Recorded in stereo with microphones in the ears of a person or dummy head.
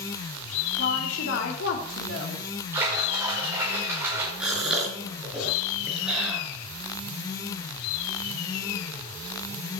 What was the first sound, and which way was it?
A woman speaking, 85° left.